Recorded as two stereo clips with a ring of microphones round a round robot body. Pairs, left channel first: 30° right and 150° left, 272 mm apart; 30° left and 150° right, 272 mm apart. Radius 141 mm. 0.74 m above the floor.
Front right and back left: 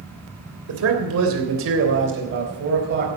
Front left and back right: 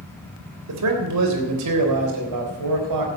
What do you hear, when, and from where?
0.7 s a man speaking: 175° right, 3 m; by 3.1 s 155° right, 4 m